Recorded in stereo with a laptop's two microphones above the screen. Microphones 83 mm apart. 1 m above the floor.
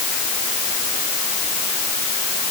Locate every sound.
Only background noise.